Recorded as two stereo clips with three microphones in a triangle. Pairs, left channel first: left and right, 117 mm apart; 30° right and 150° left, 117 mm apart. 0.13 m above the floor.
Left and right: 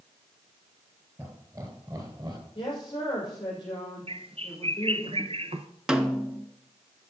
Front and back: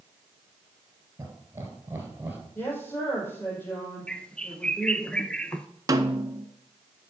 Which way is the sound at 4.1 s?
110° right.